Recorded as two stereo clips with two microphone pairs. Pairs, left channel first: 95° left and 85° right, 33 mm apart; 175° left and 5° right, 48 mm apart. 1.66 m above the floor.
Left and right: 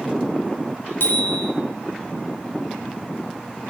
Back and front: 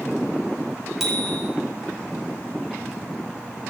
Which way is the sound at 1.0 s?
80° left.